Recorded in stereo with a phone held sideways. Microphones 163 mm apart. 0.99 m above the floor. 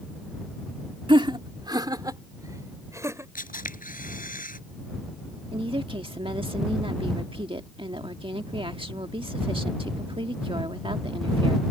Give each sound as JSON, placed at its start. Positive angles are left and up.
{"t": 1.1, "sound": "laughter", "side_deg": -30}
{"t": 3.4, "sound": "a camera shutter", "side_deg": 60}
{"t": 5.5, "sound": "a woman speaking", "side_deg": -30}